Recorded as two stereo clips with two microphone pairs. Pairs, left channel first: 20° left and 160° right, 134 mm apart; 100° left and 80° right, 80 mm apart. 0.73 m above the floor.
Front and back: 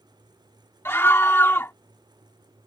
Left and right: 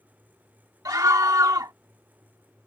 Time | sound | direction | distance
0.8 | a scream | 50° right | ?